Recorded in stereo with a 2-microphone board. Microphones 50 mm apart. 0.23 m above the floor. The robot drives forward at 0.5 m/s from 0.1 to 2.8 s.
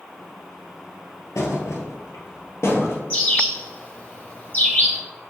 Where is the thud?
80° left, 0.9 m; by 3.0 s 55° left (ahead or behind), 1.1 m.